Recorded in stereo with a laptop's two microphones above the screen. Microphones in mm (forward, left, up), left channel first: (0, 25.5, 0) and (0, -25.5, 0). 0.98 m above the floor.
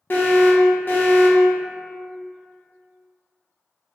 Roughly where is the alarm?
Left.